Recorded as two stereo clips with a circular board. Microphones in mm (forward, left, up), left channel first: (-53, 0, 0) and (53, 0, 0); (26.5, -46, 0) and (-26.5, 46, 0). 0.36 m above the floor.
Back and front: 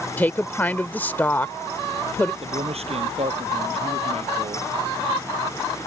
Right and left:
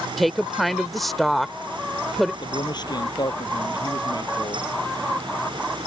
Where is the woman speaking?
150° right.